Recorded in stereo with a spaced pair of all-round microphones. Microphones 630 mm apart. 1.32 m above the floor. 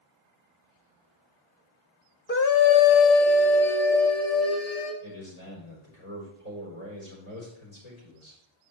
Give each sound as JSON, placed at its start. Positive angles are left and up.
{"t": 2.3, "sound": "a scream", "side_deg": 20, "distance_m": 0.5}
{"t": 5.0, "sound": "a man speaking", "side_deg": 85, "distance_m": 4.0}